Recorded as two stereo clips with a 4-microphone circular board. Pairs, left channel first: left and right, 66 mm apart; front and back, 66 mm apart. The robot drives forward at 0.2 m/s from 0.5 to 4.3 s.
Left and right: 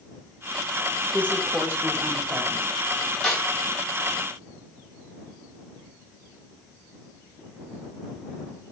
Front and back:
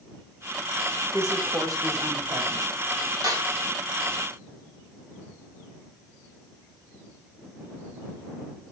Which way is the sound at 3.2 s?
170° left.